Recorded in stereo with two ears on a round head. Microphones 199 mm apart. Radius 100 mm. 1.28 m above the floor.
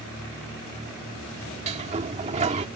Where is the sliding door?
30° right (ahead or behind).